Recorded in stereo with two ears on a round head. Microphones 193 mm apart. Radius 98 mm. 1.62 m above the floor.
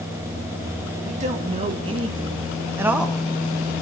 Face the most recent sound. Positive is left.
turn(degrees=5)  # may be behind; listen again after turning